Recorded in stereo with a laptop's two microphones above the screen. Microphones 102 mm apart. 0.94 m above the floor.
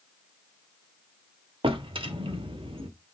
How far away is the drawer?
About 1.2 m.